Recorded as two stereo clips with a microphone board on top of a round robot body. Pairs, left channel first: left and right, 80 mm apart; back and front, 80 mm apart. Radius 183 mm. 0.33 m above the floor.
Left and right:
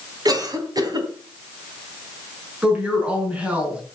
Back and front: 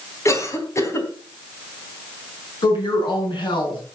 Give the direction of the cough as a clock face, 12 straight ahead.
4 o'clock.